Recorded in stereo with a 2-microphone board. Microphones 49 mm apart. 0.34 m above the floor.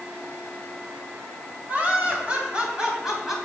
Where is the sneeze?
No sneeze in this recording.